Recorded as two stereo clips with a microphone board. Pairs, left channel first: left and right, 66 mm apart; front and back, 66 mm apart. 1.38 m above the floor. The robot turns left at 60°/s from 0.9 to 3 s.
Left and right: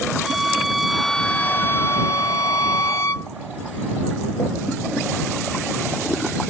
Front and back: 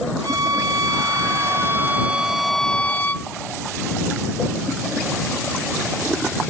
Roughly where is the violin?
Behind.